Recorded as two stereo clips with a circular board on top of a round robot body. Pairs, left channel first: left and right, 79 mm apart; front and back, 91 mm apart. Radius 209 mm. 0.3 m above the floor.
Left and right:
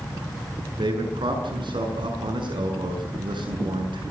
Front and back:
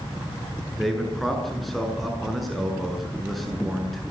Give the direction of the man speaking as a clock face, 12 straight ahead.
3 o'clock.